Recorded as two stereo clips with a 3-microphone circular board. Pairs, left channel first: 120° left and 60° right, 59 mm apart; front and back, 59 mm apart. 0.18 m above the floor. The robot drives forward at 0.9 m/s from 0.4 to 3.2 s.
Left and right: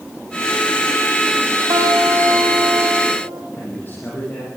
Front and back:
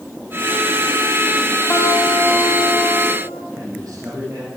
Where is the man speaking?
Straight behind, 8.5 m.